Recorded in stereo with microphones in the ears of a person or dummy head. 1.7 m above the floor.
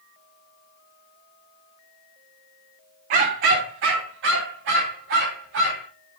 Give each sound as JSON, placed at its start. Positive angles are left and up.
{"t": 3.1, "sound": "a dog barking", "side_deg": -40, "distance_m": 1.5}